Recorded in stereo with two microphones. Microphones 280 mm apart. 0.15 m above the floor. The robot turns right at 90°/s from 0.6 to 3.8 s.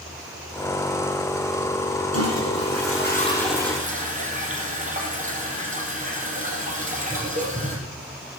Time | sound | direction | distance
2.1 | a toilet flushing | 60° left | 4 m